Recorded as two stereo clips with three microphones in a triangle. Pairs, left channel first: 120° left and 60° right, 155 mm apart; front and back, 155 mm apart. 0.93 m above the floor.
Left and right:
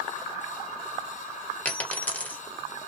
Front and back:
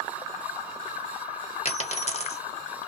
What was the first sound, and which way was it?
A dropped coin, 40° left.